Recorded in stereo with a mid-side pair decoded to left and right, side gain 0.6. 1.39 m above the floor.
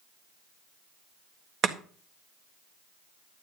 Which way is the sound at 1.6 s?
50° right.